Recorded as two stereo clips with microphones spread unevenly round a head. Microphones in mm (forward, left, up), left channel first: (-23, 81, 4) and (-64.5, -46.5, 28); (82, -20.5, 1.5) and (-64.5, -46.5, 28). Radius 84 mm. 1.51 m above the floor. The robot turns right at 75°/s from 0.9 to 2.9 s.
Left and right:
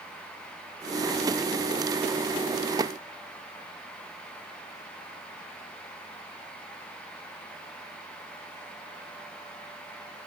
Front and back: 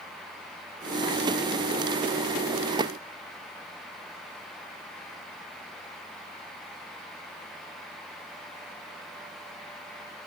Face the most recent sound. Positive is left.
No sound to turn to.